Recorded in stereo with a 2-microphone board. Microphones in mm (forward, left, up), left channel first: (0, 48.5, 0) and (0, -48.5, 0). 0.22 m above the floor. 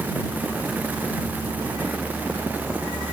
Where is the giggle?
No giggle in this recording.